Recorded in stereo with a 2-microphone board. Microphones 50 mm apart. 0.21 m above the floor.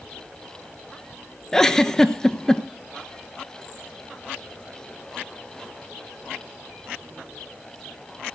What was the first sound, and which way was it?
A giggle, 10° left (ahead or behind).